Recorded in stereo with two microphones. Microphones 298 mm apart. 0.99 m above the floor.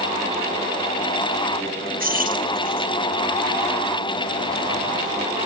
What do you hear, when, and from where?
2.0 s keys jangling: 30° right (ahead or behind)